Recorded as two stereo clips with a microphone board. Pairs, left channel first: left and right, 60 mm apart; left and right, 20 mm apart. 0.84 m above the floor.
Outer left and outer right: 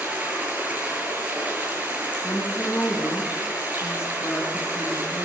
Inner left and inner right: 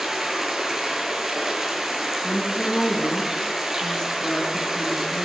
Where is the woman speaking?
40° left (ahead or behind), 9.5 m.